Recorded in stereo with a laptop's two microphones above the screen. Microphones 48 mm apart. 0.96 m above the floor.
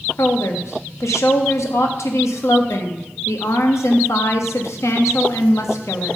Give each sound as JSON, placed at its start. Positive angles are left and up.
{"t": 0.2, "sound": "a woman speaking", "side_deg": 80, "distance_m": 1.0}